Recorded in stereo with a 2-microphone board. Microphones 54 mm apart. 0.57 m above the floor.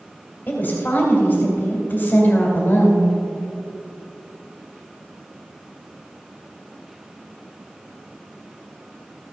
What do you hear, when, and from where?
0.5 s a woman speaking: 35° left (ahead or behind), 2.5 m